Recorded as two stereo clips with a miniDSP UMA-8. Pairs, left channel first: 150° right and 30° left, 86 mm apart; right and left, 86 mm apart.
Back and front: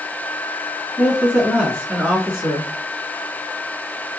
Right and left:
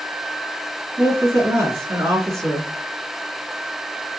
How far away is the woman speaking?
About 1.9 m.